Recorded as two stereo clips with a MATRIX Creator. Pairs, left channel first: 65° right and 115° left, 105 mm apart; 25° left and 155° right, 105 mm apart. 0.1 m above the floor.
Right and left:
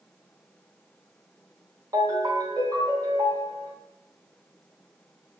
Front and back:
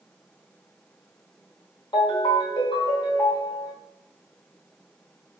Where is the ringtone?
60° left, 1.7 m.